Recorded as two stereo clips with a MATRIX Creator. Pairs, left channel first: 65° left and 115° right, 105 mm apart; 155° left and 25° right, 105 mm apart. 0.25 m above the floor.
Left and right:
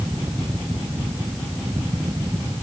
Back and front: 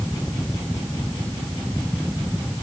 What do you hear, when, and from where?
Only background noise.